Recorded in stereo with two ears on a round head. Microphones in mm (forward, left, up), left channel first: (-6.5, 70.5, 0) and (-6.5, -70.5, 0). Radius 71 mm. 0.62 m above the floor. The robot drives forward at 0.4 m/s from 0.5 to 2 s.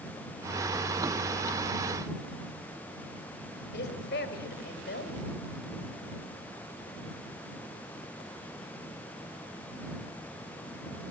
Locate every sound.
3.7 s a woman speaking: 70° left (ahead or behind), 3 m